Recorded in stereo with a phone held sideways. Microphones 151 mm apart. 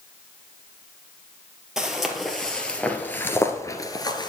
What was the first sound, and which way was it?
Footsteps, 5° right (ahead or behind).